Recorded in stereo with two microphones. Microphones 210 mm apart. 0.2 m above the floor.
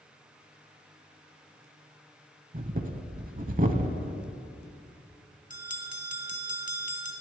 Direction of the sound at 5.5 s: 40° left (ahead or behind).